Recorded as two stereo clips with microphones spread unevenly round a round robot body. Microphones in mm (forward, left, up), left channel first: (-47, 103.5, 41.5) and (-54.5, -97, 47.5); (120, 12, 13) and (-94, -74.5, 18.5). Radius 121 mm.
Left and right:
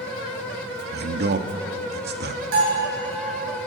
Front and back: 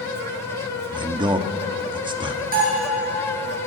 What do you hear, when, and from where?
0.9 s a man speaking: 90° right, 1.6 m
2.5 s a bell: 105° right, 9.5 m